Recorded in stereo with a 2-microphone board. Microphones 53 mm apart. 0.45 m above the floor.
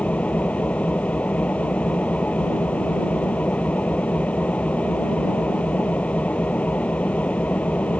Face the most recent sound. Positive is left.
turn(degrees=25)  # may be behind; listen again after turning